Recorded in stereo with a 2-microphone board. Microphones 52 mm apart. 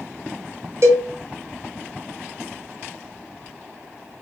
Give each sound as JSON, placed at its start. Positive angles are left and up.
{"t": 0.8, "sound": "a cowbell", "side_deg": -55, "distance_m": 0.9}